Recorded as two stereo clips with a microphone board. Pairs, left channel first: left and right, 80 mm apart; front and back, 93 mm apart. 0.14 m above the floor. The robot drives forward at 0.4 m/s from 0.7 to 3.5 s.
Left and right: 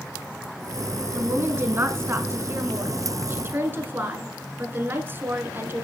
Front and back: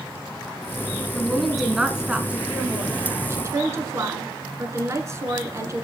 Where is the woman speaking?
75° right, 1.3 m; by 5.8 s 140° right, 1.5 m.